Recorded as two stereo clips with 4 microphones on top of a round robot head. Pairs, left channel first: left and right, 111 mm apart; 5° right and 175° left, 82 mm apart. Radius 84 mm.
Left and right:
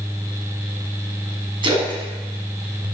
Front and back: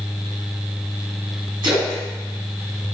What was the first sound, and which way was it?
A splash, 135° right.